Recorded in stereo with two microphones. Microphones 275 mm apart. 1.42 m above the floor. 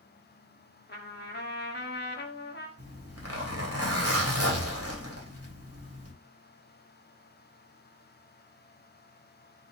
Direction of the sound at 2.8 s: 60° right (ahead or behind).